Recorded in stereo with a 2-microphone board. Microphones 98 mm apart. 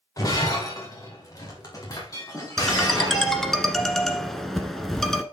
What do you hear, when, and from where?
0.2 s breaking glass: 35° left (ahead or behind), 4.5 m
2.6 s a ringtone: 5° left (ahead or behind), 1.3 m